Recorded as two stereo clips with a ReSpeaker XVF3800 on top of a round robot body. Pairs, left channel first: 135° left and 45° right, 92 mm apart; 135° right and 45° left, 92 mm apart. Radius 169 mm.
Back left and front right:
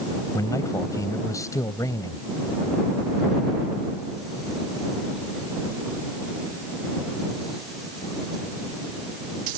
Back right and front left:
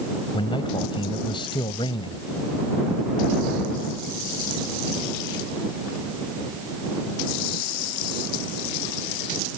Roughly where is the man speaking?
Behind.